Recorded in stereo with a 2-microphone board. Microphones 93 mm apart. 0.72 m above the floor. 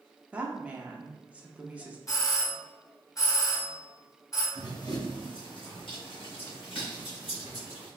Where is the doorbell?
35° left (ahead or behind), 1.3 m.